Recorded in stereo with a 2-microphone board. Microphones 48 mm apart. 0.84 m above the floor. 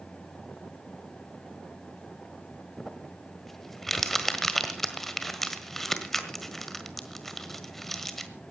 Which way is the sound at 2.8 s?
10° left (ahead or behind).